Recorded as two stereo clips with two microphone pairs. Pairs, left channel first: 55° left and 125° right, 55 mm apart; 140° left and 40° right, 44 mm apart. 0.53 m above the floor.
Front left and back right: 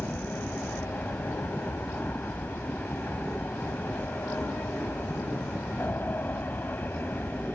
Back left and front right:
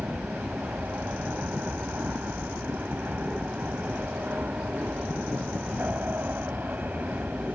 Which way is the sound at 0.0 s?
Straight ahead.